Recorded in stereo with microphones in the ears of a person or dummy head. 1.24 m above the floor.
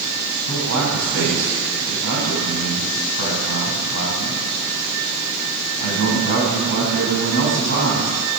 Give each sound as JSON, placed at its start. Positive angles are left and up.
{"t": 0.5, "sound": "a man speaking", "side_deg": -75, "distance_m": 7.0}